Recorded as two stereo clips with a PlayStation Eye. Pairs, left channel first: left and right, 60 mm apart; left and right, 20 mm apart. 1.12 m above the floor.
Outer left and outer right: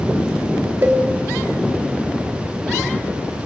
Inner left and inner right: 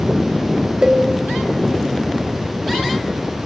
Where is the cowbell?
40° right (ahead or behind), 2.5 m.